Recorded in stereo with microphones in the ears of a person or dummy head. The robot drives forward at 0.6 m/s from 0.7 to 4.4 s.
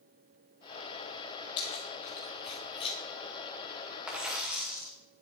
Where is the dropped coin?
5° right (ahead or behind), 2.0 m.